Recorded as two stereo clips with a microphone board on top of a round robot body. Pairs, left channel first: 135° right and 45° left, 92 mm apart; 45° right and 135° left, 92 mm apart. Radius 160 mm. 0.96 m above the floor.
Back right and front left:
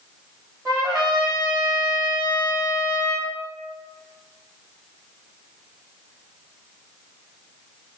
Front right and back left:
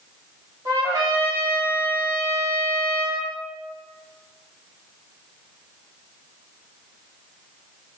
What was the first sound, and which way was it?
A trumpet, 90° left.